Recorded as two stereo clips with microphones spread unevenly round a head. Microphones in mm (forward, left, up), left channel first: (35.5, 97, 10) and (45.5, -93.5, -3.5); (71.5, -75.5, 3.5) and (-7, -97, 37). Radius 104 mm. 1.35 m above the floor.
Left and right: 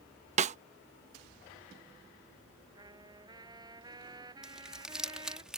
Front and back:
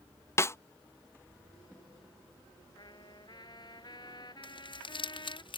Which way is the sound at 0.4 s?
55° right.